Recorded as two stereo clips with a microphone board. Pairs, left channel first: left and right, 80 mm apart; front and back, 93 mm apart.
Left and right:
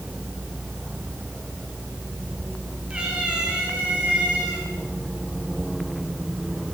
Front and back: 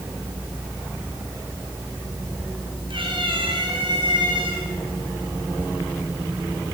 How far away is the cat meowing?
About 6.5 m.